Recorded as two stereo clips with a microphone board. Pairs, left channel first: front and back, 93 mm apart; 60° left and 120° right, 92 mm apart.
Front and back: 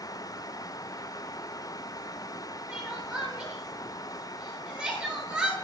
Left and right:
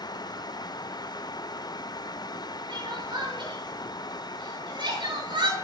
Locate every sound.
2.7 s crying: 95° right, 7.5 m